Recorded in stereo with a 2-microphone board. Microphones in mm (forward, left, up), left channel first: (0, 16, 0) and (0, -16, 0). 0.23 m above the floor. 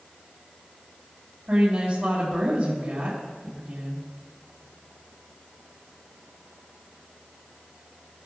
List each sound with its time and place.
1.5 s a woman speaking: 45° right (ahead or behind), 4 m